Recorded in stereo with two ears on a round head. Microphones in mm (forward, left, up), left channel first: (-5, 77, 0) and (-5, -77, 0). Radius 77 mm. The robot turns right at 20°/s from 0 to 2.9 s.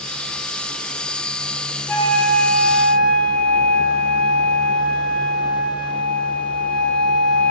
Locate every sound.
1.9 s a flute: 15° left (ahead or behind), 1.9 m; by 7.5 s 5° left (ahead or behind), 1.9 m